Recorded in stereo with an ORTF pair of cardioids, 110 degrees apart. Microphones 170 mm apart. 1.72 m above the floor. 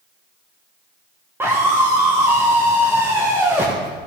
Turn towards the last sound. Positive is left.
turn(degrees=-15)